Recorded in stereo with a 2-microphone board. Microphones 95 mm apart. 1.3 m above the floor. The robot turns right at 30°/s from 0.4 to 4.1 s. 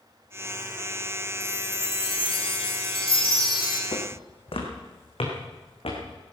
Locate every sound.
1.4 s a chime: 50° left, 2 m; by 3.8 s 120° left, 2 m
3.9 s footsteps: 60° left (ahead or behind), 3 m; by 6.0 s 70° left (ahead or behind), 4.5 m